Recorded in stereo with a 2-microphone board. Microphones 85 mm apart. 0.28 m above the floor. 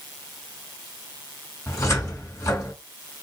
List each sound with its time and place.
1.7 s a cupboard door: 40° left (ahead or behind), 1.9 m